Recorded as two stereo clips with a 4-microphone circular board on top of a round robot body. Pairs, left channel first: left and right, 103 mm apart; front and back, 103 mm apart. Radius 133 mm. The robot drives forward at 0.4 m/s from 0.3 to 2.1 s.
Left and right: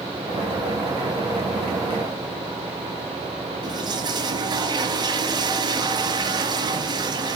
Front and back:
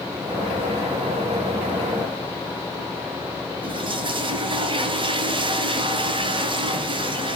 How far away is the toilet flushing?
About 1.4 m.